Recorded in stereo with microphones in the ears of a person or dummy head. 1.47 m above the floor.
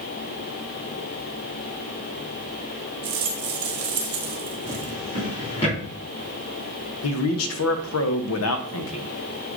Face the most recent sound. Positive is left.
turn(degrees=80)